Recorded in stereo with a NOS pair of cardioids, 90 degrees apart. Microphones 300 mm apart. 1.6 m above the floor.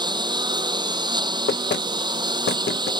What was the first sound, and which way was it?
A lawn mower, 15° right.